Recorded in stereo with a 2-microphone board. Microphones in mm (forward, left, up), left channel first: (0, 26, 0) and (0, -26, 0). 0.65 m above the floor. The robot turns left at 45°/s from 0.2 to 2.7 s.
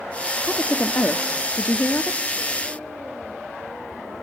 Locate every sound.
0.4 s a woman speaking: 150° left, 0.9 m; by 2.3 s 65° left, 0.9 m